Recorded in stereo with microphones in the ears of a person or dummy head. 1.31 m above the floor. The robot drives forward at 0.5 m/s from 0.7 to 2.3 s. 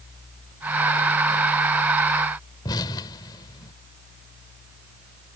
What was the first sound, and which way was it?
An explosion, 25° left (ahead or behind).